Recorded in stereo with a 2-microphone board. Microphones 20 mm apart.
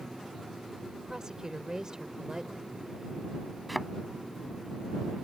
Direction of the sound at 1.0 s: 30° right (ahead or behind).